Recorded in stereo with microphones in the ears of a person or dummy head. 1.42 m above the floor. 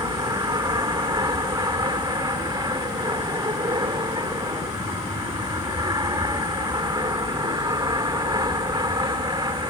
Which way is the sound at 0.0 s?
15° right (ahead or behind).